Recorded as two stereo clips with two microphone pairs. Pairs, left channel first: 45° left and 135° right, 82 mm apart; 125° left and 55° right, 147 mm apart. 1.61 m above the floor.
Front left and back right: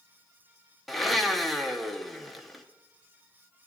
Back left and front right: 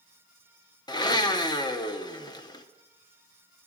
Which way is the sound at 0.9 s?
140° left.